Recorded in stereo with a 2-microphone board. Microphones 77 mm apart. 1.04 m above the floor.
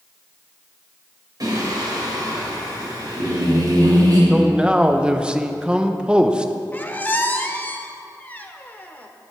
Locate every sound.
1.4 s singing: 55° right (ahead or behind), 3.5 m
4.3 s a man speaking: 15° right (ahead or behind), 0.7 m
6.7 s a squeak: 20° left (ahead or behind), 0.7 m